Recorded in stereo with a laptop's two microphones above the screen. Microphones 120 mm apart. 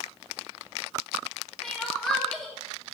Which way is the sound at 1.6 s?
5° left (ahead or behind).